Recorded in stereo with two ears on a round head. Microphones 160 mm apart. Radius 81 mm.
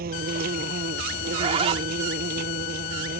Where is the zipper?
35° right (ahead or behind).